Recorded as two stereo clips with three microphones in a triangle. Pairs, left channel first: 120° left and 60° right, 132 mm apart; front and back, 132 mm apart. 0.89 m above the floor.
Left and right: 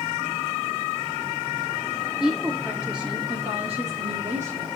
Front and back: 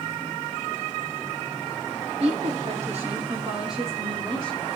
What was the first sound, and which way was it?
A woman speaking, 135° right.